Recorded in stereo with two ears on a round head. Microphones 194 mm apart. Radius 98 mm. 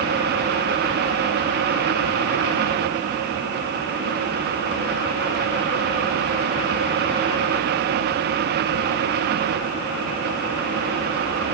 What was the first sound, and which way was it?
Only background noise.